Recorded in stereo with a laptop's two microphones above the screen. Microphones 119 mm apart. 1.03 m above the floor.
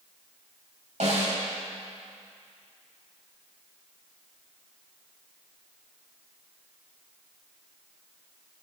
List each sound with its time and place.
1.0 s a snare drum: 70° right (ahead or behind), 5 m